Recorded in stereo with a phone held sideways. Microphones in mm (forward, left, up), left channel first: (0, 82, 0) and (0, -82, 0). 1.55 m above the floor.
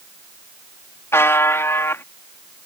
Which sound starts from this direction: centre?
A buzzer, at 1.1 s.